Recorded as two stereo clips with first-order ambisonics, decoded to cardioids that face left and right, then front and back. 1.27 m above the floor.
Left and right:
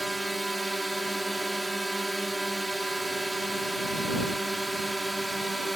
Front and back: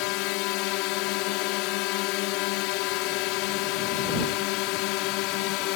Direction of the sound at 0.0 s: 5° right.